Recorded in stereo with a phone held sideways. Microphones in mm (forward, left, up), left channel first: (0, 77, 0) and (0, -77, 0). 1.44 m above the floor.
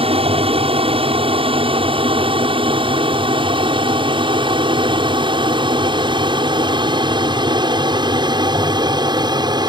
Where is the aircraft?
40° right (ahead or behind); by 9.7 s 25° right (ahead or behind).